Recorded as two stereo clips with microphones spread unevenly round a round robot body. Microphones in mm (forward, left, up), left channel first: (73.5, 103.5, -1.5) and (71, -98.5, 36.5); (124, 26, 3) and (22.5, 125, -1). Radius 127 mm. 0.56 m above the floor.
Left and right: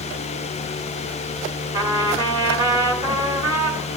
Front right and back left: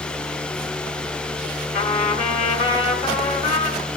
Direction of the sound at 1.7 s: 15° right.